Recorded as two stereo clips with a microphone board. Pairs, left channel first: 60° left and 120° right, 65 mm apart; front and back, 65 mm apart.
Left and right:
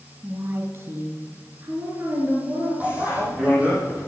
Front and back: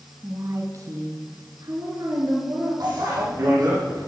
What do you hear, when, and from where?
0.2 s a woman speaking: 165° right, 1.2 m; by 2.7 s 170° right, 4.5 m
2.8 s a bicycle bell: 170° left, 7.5 m